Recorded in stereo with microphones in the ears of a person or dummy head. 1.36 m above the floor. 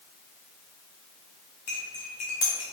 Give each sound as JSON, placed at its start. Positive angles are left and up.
{"t": 1.7, "sound": "cutlery clinking", "side_deg": 30, "distance_m": 0.5}